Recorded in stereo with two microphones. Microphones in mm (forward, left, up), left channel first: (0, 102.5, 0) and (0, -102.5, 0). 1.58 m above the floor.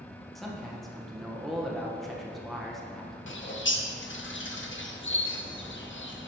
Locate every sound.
0.3 s a man speaking: centre (ahead or behind), 1.4 m
3.3 s a bird: 80° left, 0.7 m